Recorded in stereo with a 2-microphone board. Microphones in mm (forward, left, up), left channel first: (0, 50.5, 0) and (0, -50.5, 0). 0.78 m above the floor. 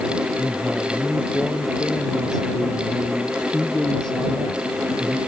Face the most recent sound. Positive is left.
turn(degrees=5)  # may be behind; listen again after turning